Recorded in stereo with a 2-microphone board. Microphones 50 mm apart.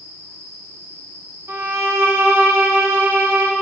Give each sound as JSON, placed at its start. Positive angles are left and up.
{"t": 1.5, "sound": "a violin", "side_deg": -65, "distance_m": 0.8}